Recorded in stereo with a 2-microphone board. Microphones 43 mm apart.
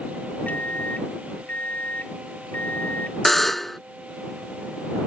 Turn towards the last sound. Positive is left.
turn(degrees=5)  # may be behind; listen again after turning